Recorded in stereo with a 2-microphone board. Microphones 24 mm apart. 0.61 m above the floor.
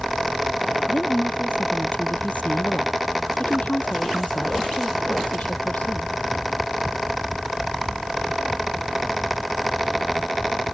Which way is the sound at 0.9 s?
75° left (ahead or behind).